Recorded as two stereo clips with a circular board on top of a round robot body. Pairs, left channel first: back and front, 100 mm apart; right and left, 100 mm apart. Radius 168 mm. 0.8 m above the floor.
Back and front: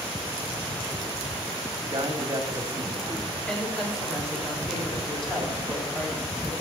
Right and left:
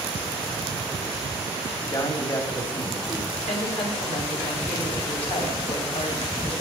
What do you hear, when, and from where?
1.8 s a man speaking: 45° right, 1.9 m
3.3 s a woman speaking: 95° right, 5 m